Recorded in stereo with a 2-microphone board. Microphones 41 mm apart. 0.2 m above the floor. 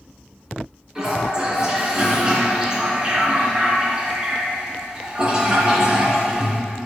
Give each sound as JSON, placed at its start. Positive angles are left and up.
{"t": 0.9, "sound": "a toilet flushing", "side_deg": -15, "distance_m": 2.5}